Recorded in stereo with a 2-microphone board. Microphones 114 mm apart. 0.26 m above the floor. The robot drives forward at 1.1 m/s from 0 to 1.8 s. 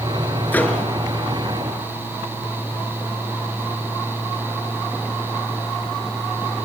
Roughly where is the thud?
No thud in this recording.